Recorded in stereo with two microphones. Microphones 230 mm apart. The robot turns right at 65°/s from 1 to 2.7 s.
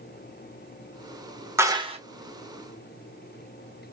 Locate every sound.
1.6 s a clap: 10° right (ahead or behind), 0.7 m; by 2.0 s 30° right (ahead or behind), 0.7 m